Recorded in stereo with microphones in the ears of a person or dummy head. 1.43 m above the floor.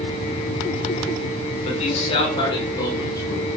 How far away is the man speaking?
About 6 m.